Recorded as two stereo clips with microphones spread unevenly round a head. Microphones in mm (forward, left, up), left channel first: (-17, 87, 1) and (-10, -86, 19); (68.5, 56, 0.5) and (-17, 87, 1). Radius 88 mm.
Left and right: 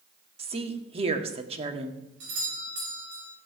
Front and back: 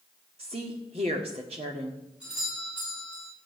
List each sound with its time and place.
0.4 s a woman speaking: 145° right, 1.8 m
2.2 s a doorbell: 115° right, 8 m